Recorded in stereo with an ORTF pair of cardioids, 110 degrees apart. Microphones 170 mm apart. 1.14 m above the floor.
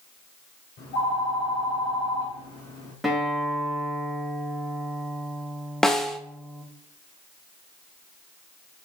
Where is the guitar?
Straight ahead, 2 m.